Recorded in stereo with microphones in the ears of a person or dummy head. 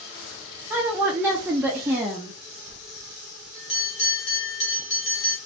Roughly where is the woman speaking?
Centre.